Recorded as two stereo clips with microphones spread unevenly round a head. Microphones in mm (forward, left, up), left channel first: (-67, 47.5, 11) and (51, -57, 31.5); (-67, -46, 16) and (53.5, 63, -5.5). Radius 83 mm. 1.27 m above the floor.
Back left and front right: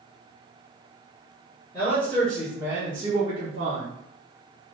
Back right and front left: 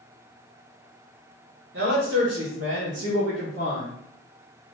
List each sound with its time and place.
1.7 s a man speaking: 65° left, 1.6 m; by 3.9 s straight ahead, 1.2 m